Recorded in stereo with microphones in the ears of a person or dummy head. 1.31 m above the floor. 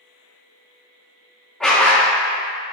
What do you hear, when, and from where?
1.6 s a dog barking: 5° left (ahead or behind), 1.3 m